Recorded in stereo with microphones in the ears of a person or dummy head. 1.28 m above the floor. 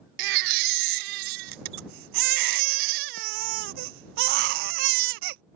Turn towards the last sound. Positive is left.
turn(degrees=-60)  # may be behind; listen again after turning